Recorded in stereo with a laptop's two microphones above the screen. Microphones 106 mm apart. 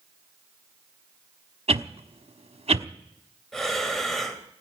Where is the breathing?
5° left (ahead or behind), 2.5 m.